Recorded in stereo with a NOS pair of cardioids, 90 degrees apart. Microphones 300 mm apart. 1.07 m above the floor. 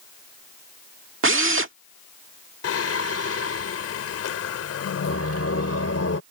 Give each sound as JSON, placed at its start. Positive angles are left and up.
{"t": 1.2, "sound": "a drill", "azimuth_deg": -40}
{"t": 2.6, "sound": "singing", "azimuth_deg": 50}